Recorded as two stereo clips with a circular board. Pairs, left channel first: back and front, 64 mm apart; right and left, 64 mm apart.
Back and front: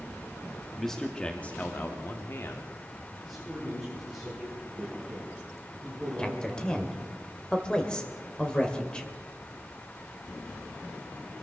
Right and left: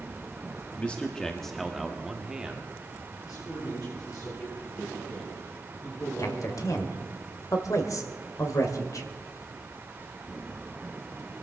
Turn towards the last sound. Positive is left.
turn(degrees=-105)